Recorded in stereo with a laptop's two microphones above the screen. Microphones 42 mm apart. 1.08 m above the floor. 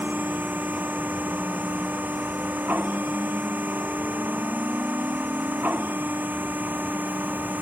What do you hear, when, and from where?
0.0 s a machine running: 45° right (ahead or behind)